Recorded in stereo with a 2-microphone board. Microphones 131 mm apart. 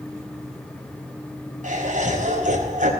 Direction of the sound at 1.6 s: 80° right.